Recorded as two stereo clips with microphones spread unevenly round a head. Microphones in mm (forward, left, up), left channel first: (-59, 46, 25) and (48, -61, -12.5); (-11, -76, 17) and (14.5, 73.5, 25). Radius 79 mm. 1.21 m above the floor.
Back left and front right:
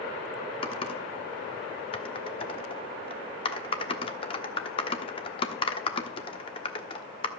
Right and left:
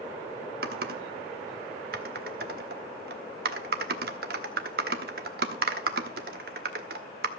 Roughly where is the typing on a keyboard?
Left.